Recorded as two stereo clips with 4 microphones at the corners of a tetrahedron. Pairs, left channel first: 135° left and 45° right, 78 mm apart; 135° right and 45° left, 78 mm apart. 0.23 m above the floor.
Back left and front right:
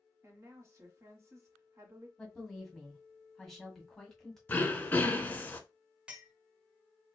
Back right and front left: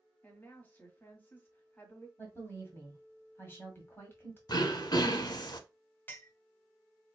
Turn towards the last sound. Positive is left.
turn(degrees=-105)